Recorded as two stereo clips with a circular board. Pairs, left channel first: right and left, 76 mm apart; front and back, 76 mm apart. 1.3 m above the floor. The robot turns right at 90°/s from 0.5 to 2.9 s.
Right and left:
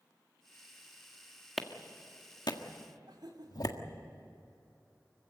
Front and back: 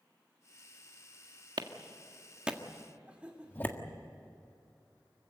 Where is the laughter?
105° left, 3 m.